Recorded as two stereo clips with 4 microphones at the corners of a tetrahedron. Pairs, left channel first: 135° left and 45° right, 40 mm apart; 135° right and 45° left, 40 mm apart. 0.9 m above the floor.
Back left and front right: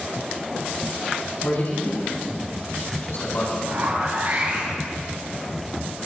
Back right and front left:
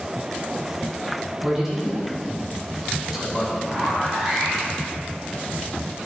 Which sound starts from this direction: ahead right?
A zipper, at 3.6 s.